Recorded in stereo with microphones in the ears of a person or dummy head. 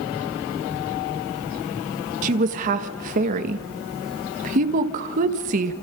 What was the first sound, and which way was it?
A woman speaking, 45° right (ahead or behind).